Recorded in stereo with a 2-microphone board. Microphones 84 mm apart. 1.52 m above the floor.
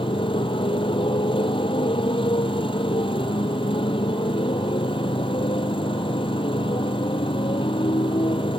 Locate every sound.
0.0 s a motorcycle: 85° left